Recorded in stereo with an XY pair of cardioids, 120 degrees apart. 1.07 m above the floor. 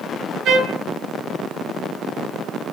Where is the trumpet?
65° right, 0.8 m.